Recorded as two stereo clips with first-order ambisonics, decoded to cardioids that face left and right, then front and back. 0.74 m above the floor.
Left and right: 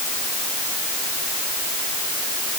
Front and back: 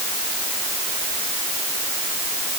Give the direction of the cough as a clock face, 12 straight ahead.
No cough in this recording.